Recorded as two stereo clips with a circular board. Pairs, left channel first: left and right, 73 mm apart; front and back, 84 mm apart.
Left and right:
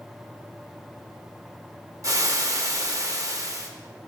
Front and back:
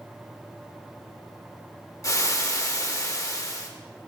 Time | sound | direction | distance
2.0 | frying | 50° right | 0.8 m